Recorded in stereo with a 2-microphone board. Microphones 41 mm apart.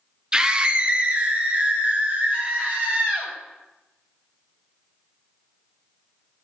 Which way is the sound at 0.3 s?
20° right (ahead or behind).